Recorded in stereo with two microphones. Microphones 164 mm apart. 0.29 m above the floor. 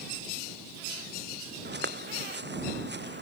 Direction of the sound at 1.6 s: 85° right.